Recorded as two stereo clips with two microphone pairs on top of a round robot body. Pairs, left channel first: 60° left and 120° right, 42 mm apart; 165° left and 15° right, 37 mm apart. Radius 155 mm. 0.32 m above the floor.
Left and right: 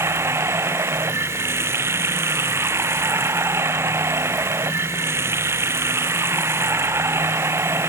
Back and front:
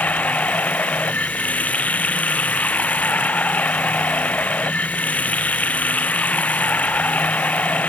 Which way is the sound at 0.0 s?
145° right.